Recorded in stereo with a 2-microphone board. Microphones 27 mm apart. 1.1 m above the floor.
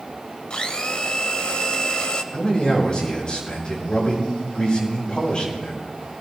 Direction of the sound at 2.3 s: 40° left (ahead or behind).